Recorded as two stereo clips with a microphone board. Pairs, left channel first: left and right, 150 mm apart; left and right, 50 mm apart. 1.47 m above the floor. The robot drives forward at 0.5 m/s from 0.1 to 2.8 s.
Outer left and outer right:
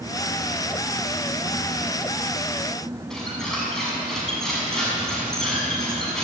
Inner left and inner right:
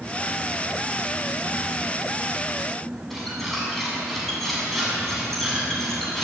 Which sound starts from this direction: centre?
A squeak, at 3.1 s.